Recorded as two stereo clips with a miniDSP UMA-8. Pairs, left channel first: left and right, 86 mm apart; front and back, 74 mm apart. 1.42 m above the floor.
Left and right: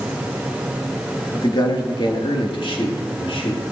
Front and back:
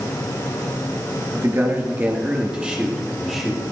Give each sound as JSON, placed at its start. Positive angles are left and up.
{"t": 1.3, "sound": "a man speaking", "azimuth_deg": 130, "distance_m": 2.5}